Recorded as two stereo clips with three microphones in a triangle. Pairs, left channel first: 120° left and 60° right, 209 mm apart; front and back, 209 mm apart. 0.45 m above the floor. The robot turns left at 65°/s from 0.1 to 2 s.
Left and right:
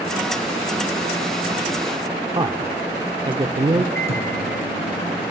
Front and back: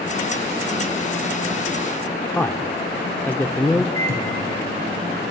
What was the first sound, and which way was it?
A man speaking, 65° right.